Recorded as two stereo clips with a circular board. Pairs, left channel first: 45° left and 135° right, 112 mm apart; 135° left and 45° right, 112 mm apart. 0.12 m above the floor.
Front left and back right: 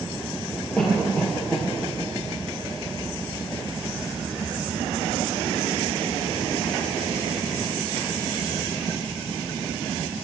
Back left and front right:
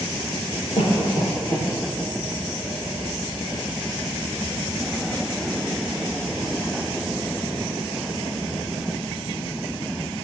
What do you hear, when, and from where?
0.8 s a cough: 125° left, 3 m